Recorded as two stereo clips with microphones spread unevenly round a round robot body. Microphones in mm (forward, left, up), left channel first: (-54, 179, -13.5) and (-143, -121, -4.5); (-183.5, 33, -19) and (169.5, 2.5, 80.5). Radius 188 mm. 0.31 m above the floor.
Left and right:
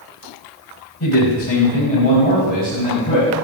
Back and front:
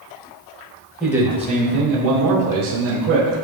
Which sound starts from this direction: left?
A man speaking, at 1.0 s.